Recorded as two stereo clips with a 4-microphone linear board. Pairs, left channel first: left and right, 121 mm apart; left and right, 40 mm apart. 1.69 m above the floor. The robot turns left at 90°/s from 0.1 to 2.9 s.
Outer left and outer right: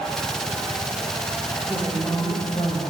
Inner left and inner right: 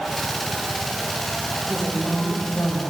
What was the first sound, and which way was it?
A woman speaking, 160° right.